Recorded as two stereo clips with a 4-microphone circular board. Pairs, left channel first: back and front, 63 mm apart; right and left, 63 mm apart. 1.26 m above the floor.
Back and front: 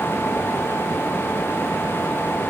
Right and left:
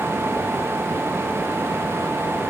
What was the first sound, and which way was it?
Only background noise.